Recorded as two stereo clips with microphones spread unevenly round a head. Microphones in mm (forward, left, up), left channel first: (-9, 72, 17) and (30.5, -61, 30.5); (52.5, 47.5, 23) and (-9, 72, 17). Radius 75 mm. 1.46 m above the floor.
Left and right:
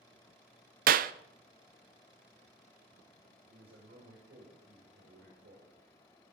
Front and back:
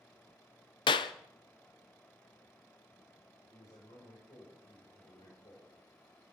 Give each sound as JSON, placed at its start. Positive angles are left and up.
{"t": 0.9, "sound": "a clap", "azimuth_deg": -45, "distance_m": 0.6}
{"t": 3.5, "sound": "a man speaking", "azimuth_deg": -55, "distance_m": 7.0}